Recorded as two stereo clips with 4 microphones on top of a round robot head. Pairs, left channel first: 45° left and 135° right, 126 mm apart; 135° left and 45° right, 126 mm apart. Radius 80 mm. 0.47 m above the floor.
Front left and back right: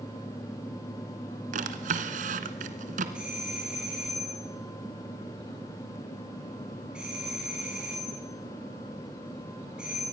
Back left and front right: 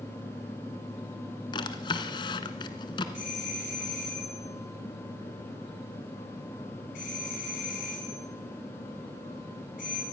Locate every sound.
1.5 s a drawer: 165° right, 1.5 m
3.1 s a doorbell: 140° left, 6 m